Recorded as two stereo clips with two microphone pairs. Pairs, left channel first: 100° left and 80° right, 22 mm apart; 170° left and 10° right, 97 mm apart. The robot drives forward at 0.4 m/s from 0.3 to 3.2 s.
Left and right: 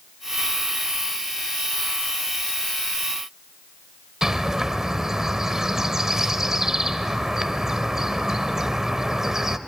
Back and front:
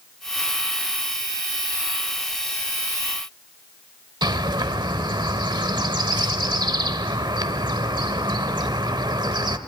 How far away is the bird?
About 1.1 m.